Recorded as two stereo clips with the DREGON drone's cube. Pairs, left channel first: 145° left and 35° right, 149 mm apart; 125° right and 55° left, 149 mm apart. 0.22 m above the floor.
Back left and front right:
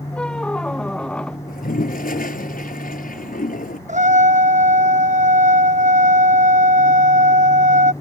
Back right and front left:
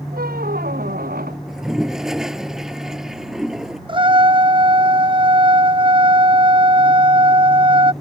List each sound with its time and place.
0.1 s a squeak: 60° left
1.5 s a toilet flushing: 145° left
3.9 s a trumpet: straight ahead